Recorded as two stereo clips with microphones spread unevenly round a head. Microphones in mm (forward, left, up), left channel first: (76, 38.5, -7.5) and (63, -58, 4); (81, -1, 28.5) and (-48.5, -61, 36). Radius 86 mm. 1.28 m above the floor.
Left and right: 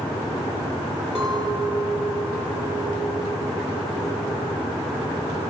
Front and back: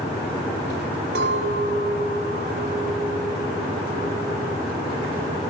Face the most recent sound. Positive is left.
turn(degrees=175)